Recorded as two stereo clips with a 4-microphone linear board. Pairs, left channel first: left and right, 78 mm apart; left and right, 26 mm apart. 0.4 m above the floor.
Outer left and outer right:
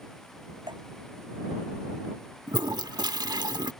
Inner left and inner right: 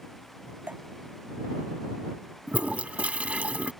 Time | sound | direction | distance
0.7 | dripping | 75° right (ahead or behind) | ?
2.5 | a toilet flushing | 65° right (ahead or behind) | ?